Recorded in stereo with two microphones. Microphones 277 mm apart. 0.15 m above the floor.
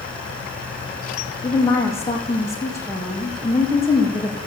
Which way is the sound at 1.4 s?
10° left (ahead or behind).